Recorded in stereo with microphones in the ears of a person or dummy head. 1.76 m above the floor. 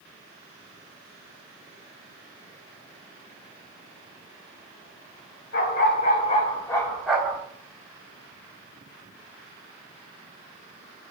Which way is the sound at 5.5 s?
50° left (ahead or behind).